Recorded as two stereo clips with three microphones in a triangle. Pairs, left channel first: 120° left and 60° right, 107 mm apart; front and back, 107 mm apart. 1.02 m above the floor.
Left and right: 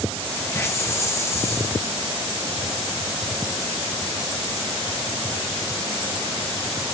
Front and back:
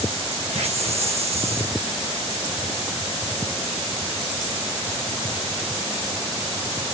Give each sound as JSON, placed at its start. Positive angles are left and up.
{"t": 0.5, "sound": "a hiss", "azimuth_deg": 180, "distance_m": 1.1}